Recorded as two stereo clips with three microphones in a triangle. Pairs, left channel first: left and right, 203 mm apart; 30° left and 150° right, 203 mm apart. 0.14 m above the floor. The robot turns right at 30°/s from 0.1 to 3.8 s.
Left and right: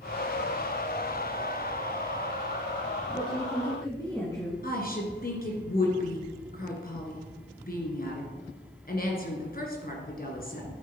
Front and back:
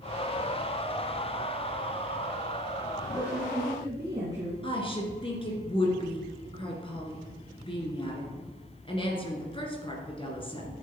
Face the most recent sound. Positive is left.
turn(degrees=85)